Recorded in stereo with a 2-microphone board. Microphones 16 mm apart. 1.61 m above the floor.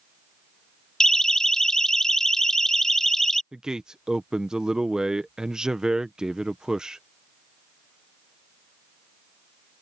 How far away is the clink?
I don't hear a clink.